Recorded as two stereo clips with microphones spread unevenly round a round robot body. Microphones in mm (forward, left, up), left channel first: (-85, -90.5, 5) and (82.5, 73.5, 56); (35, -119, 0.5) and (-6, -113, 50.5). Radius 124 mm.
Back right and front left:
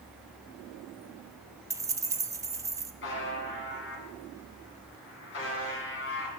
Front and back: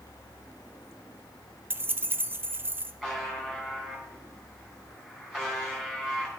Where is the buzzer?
100° right, 3 m.